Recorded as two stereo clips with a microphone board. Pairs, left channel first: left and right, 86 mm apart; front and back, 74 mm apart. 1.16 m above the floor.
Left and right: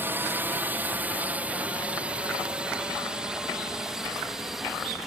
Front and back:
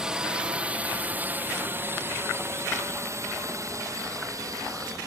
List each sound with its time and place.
0.0 s a drone: 115° right; by 5.1 s straight behind